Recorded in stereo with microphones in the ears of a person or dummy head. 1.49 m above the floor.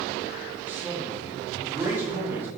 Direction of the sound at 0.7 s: 15° right (ahead or behind).